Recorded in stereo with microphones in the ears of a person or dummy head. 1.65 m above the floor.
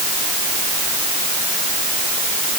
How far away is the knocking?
No knocking in this recording.